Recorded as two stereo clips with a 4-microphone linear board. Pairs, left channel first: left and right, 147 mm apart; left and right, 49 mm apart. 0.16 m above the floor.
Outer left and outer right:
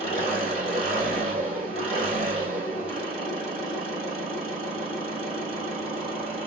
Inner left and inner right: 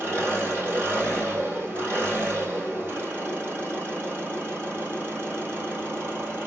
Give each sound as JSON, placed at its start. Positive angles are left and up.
{"t": 0.0, "sound": "an engine running", "side_deg": -45, "distance_m": 2.5}